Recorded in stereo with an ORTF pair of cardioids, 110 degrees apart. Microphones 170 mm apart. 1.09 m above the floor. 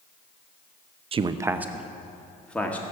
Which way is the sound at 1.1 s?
35° right.